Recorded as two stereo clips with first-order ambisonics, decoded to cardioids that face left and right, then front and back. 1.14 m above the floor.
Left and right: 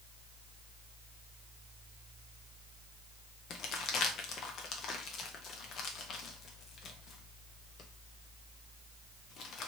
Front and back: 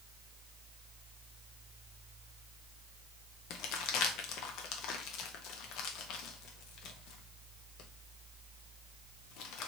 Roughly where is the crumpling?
Ahead left.